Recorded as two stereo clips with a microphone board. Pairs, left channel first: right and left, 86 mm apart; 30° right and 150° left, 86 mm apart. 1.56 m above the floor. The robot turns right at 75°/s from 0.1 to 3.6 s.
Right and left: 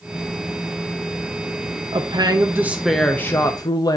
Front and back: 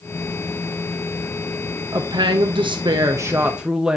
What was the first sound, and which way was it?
A woman speaking, 105° left.